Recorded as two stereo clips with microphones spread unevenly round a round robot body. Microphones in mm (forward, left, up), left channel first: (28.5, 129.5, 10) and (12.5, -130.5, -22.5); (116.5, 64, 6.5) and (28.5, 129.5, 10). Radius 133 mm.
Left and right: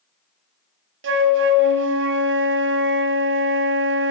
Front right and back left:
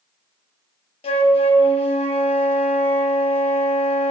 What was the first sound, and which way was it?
A flute, 65° right.